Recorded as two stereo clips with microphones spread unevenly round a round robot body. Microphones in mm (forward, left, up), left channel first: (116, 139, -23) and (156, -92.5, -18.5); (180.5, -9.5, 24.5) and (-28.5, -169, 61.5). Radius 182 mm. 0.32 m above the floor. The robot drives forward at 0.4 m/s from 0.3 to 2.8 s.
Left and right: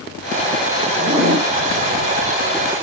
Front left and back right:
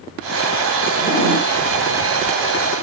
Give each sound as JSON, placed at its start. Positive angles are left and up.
{"t": 1.0, "sound": "a zipper", "azimuth_deg": -15, "distance_m": 2.5}